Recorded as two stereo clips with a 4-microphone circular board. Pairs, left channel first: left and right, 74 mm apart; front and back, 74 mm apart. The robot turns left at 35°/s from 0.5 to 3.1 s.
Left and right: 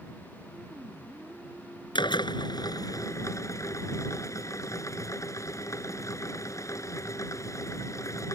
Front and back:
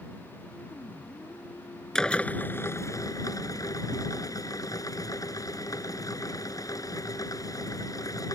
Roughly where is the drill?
Left.